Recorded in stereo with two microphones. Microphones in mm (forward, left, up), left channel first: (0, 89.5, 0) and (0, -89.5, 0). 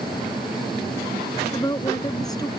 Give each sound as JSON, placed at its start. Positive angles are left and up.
{"t": 1.5, "sound": "a woman speaking", "side_deg": 20}